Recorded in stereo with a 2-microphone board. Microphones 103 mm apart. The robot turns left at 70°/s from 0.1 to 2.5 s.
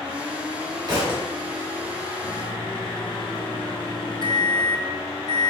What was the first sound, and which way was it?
A thud, 45° right (ahead or behind).